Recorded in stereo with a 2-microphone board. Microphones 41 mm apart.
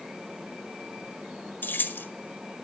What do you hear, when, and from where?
1.6 s keys jangling: 55° left (ahead or behind), 1.5 m